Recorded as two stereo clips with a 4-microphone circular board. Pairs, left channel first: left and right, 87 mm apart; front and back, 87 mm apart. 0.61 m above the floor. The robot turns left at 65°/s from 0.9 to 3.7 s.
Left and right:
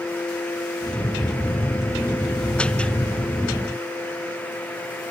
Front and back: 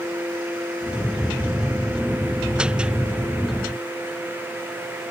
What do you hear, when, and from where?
Only background noise.